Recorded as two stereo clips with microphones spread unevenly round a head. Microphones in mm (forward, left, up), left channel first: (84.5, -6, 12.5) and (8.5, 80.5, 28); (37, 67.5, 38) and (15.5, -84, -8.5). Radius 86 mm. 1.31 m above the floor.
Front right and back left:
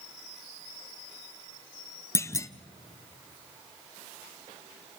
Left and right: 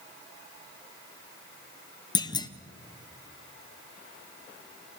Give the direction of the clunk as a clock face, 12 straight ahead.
12 o'clock.